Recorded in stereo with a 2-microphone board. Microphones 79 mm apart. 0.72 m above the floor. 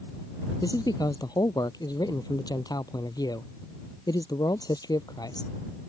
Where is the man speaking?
55° left (ahead or behind).